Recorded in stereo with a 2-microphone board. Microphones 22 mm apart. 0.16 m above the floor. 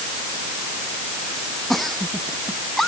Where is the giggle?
10° left (ahead or behind).